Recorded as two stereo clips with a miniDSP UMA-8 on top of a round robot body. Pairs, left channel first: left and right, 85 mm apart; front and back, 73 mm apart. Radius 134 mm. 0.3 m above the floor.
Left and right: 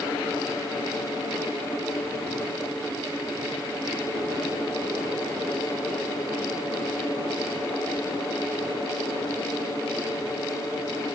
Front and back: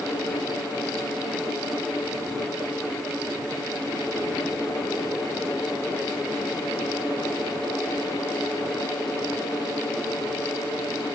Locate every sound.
Only background noise.